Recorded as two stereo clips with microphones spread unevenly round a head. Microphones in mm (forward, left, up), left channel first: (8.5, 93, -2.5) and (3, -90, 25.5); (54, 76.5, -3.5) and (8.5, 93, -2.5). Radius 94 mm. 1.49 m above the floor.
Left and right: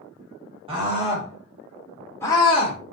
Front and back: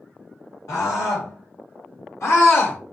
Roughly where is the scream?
Ahead right.